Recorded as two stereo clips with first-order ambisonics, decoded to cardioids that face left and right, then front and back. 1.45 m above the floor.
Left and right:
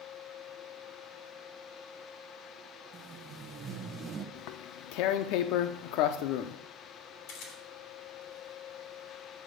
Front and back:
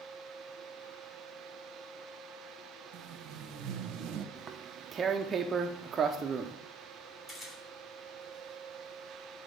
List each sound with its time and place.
2.9 s tape being pulled: 150° right, 0.8 m
4.3 s tearing paper: 115° left, 0.5 m
7.3 s a camera shutter: 75° left, 3 m